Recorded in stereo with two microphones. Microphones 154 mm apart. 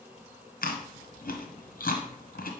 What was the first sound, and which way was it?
Chewing, 70° left (ahead or behind).